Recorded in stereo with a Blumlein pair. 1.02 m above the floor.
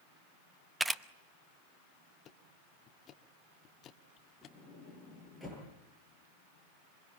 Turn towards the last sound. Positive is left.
turn(degrees=0)